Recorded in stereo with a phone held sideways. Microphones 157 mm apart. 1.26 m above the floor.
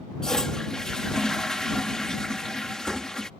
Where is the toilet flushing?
5° left (ahead or behind).